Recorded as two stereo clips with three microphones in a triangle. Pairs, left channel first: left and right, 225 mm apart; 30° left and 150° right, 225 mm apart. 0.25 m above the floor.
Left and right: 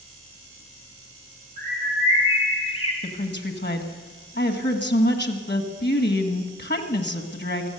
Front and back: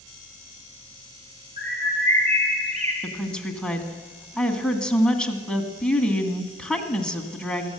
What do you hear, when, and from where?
1.6 s a bird: 155° left, 3 m
3.0 s a woman speaking: 115° left, 1.7 m